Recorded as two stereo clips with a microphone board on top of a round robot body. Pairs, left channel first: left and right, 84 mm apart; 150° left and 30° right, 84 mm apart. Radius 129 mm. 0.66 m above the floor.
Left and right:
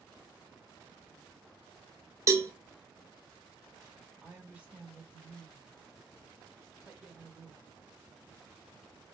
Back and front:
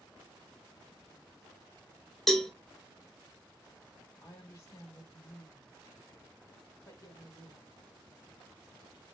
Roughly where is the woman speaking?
Behind.